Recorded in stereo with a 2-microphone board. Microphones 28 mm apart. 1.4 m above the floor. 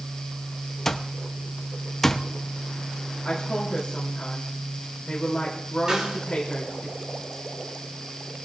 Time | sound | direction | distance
0.8 | an alarm clock | 15° left (ahead or behind) | 0.7 m
3.2 | a woman speaking | 25° left (ahead or behind) | 3 m
5.9 | a snare drum | 25° right (ahead or behind) | 5 m